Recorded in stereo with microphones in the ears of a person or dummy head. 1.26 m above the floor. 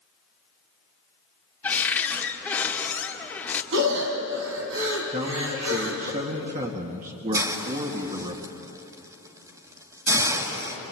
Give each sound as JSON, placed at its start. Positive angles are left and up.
{"t": 1.6, "sound": "a cupboard door", "side_deg": 10, "distance_m": 1.9}
{"t": 3.7, "sound": "breathing", "side_deg": -70, "distance_m": 3.5}
{"t": 5.1, "sound": "a man speaking", "side_deg": -35, "distance_m": 2.0}
{"t": 7.3, "sound": "a hiss", "side_deg": -15, "distance_m": 2.5}